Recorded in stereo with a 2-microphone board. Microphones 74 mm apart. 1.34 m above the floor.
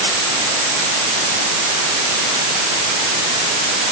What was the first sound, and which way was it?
Only background noise.